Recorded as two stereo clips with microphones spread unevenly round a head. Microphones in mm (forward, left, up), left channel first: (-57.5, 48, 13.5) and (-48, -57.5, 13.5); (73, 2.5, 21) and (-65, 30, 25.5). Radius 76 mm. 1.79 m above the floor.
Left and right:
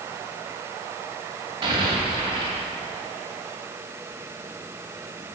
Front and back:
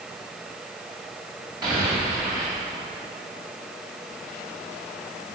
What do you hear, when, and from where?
1.6 s an explosion: 130° right, 3 m